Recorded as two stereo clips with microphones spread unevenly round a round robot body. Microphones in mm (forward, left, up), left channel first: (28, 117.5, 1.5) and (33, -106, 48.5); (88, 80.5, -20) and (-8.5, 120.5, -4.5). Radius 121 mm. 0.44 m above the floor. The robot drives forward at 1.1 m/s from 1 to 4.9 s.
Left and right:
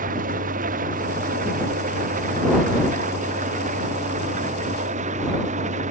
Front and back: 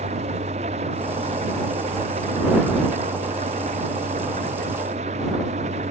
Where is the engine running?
145° right; by 5.9 s 150° right.